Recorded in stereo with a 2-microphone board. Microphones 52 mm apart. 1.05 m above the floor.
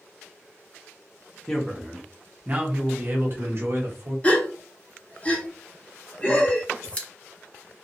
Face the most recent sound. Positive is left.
turn(degrees=25)  # may be behind; listen again after turning